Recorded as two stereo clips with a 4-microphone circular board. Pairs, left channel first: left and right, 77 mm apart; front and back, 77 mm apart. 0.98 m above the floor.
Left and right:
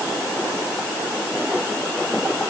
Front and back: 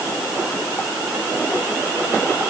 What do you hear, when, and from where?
Only background noise.